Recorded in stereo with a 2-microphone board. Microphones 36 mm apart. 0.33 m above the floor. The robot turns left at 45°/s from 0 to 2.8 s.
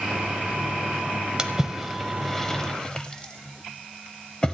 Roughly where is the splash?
Right.